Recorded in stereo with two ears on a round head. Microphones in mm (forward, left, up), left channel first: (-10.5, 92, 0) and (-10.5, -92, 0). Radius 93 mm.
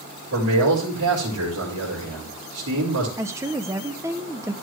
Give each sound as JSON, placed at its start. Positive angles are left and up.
{"t": 0.3, "sound": "a man speaking", "side_deg": -85, "distance_m": 5.0}
{"t": 3.2, "sound": "a woman speaking", "side_deg": -15, "distance_m": 0.7}